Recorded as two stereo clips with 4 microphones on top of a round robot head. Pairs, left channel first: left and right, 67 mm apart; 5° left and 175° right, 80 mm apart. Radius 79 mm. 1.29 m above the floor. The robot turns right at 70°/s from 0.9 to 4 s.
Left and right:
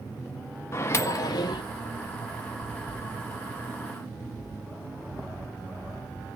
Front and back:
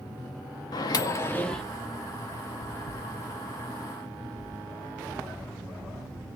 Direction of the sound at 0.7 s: 40° left.